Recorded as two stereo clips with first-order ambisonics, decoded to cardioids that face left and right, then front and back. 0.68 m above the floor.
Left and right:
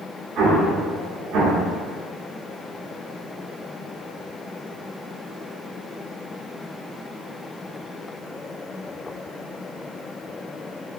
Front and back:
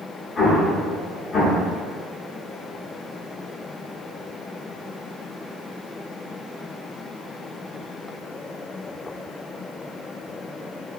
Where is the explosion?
60° right, 0.8 m.